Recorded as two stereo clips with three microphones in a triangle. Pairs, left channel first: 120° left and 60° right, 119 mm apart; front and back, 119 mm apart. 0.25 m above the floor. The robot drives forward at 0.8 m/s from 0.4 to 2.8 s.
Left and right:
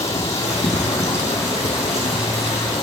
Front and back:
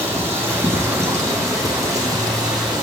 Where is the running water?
110° left, 6.5 m; by 2.8 s 125° left, 7.5 m.